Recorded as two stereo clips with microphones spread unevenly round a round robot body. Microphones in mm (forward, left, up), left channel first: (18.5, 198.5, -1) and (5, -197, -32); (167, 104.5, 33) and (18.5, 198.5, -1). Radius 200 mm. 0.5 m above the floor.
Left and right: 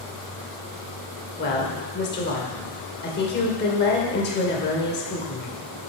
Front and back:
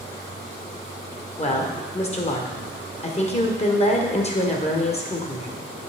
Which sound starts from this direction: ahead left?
A woman speaking, at 1.4 s.